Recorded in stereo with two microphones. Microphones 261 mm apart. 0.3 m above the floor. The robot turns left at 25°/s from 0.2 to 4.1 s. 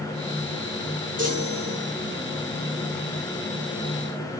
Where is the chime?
60° right (ahead or behind), 3 m; by 1.9 s 45° right (ahead or behind), 3 m.